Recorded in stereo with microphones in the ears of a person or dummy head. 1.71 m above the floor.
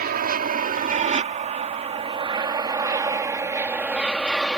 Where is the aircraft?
45° right (ahead or behind); by 4.6 s centre (ahead or behind).